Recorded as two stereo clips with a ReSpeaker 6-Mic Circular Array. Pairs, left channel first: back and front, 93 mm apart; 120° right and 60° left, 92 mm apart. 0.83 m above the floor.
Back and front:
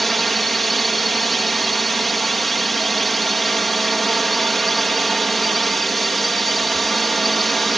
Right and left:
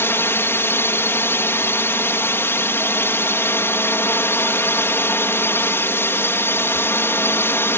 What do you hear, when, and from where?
0.0 s a drone: 90° right